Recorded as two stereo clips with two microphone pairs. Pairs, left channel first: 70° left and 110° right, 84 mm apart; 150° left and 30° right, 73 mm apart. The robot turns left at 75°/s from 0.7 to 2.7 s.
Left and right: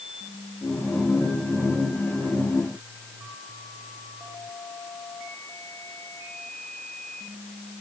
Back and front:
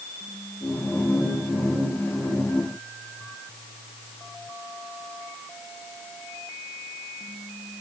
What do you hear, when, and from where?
Only background noise.